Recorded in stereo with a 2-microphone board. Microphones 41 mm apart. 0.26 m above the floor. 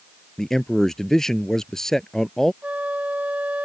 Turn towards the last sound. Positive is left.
turn(degrees=-35)  # may be behind; listen again after turning